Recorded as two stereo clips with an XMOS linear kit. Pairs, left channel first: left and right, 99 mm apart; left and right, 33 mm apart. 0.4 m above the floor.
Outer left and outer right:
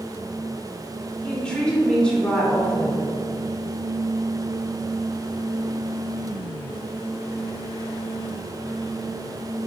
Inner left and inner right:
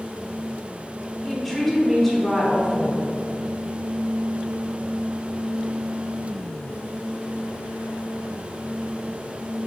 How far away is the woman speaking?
About 0.8 m.